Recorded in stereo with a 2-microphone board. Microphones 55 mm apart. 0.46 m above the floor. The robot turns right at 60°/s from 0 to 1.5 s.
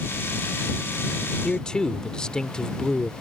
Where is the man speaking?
15° left (ahead or behind).